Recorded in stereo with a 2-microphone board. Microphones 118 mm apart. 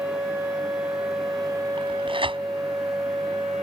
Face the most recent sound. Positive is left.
turn(degrees=-50)  # may be behind; listen again after turning